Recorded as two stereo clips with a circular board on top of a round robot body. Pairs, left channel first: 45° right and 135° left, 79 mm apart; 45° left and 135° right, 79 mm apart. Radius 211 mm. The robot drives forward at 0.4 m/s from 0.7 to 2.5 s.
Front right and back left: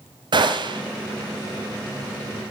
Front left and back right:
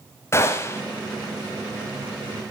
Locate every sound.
0.3 s a gunshot: 105° left, 1.0 m